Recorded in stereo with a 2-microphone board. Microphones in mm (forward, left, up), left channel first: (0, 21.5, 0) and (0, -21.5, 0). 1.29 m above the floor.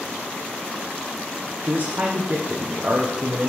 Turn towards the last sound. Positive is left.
turn(degrees=-45)  # may be behind; listen again after turning